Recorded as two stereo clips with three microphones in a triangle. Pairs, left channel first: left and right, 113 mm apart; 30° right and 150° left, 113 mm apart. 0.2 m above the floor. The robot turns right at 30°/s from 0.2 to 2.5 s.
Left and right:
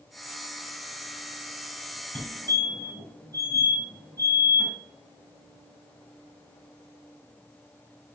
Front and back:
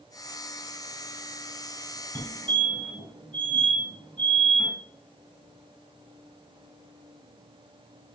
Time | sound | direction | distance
2.1 | a fire alarm | 30° left | 2.5 m